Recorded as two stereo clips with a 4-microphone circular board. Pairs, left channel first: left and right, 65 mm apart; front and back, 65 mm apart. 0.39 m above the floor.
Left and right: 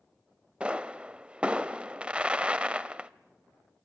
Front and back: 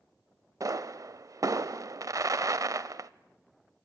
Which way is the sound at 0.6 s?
160° right.